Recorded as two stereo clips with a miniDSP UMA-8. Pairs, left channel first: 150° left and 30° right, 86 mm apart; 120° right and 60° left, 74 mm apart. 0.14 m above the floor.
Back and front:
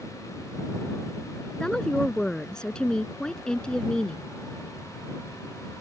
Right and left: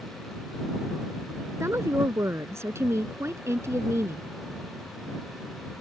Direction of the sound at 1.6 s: 75° left.